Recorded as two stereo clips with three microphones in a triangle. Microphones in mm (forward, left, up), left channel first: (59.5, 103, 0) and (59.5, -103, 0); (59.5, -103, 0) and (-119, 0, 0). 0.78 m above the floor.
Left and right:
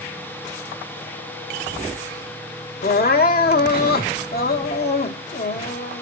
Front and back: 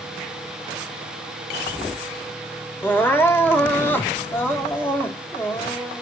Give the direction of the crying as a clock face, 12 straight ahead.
10 o'clock.